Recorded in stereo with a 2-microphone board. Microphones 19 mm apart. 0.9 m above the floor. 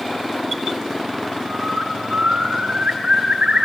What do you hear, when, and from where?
1.4 s a bird: 65° right (ahead or behind), 3 m